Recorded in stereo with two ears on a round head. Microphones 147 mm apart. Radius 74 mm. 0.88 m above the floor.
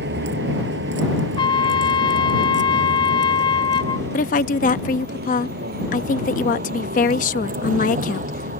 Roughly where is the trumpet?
Left.